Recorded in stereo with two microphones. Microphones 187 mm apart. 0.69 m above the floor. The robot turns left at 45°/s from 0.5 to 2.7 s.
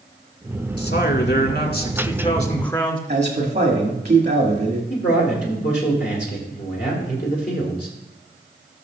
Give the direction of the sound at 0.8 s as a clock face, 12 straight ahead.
8 o'clock.